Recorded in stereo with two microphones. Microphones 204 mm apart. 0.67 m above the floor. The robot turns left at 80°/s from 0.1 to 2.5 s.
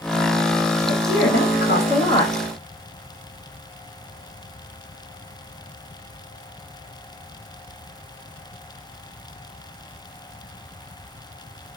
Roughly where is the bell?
No bell in this recording.